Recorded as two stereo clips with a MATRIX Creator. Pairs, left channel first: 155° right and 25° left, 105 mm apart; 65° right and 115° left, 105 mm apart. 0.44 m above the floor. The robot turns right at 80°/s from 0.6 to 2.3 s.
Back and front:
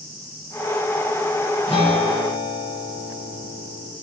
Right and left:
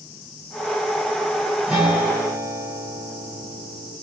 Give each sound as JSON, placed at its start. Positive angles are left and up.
{"t": 1.7, "sound": "a guitar", "azimuth_deg": -175, "distance_m": 1.6}